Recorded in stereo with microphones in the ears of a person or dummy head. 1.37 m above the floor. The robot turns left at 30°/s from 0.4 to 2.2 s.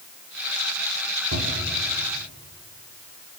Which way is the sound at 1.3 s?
85° right.